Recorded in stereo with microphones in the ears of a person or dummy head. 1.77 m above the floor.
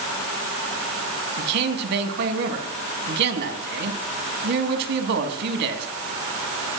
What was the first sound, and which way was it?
A man speaking, 60° right (ahead or behind).